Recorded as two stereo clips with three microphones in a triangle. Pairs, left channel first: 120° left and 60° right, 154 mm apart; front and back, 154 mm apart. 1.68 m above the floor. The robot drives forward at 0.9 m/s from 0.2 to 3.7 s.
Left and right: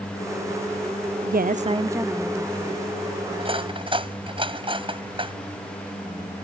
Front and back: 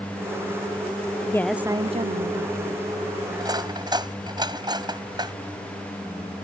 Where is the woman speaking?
60° right; by 2.8 s 160° right.